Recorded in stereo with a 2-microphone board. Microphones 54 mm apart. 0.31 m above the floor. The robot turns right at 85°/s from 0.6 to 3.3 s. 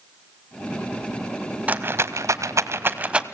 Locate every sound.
1.7 s a rattle: 30° right (ahead or behind), 0.8 m; by 3.2 s 15° right (ahead or behind), 0.8 m